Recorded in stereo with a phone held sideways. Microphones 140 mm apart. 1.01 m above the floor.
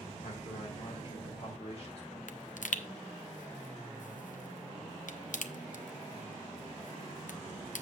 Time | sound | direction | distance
0.2 | a man speaking | 60° left (ahead or behind) | 3.5 m
2.3 | a pop | 75° left (ahead or behind) | 0.6 m